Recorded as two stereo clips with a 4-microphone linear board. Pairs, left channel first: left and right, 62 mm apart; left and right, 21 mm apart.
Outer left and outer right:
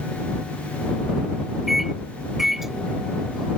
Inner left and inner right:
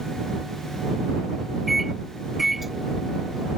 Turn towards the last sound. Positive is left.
turn(degrees=-5)  # may be behind; listen again after turning